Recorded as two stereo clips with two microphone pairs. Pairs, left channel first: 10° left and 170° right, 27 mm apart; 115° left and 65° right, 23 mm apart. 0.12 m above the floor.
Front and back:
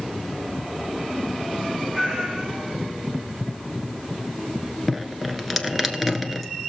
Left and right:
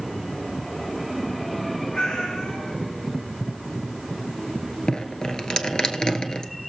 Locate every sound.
1.9 s a cat meowing: 115° left, 3.5 m
4.9 s dripping: 105° left, 1.1 m